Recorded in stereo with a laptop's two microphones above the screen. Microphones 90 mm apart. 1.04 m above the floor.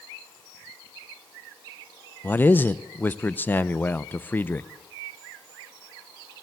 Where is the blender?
No blender in this recording.